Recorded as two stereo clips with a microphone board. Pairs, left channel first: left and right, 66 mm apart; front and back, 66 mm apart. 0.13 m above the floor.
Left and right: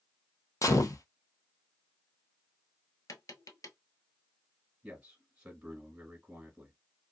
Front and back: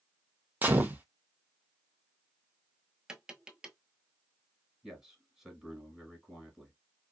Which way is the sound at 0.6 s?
120° left.